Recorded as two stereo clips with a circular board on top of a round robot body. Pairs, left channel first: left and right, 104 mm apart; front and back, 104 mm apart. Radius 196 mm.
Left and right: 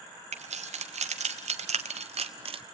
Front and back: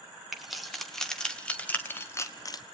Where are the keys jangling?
90° right, 1.8 m; by 2.6 s 55° right, 0.9 m.